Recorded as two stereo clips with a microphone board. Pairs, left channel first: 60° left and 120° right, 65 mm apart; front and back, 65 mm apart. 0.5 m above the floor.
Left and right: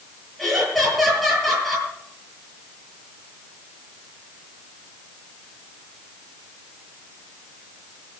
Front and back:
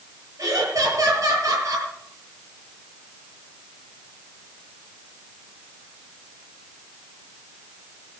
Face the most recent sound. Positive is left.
turn(degrees=150)